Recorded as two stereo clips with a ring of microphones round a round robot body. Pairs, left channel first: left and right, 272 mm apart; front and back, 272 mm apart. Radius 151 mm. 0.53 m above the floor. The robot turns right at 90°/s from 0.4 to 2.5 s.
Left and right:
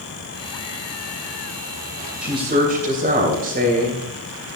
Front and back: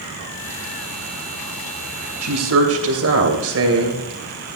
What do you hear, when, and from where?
2.2 s a woman speaking: straight behind, 3 m; by 4.1 s 150° right, 3 m